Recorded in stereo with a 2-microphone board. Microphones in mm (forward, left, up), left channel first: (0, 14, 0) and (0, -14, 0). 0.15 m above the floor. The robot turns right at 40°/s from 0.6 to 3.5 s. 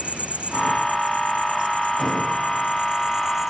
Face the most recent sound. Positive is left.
turn(degrees=-15)